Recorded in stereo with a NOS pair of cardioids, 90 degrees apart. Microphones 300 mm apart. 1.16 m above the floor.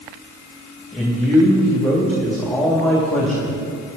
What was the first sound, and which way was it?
A man speaking, straight ahead.